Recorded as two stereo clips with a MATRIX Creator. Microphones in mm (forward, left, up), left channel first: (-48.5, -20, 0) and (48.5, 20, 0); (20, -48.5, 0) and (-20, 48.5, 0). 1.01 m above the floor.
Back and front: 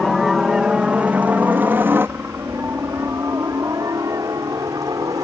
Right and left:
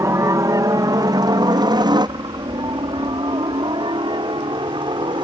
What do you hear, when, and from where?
0.0 s a helicopter: 115° left; by 5.2 s 75° left